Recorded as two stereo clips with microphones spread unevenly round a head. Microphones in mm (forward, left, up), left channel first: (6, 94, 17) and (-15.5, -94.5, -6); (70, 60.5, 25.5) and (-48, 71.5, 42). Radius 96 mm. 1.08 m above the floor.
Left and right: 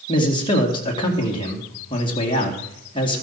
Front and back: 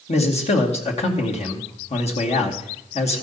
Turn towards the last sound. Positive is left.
turn(degrees=15)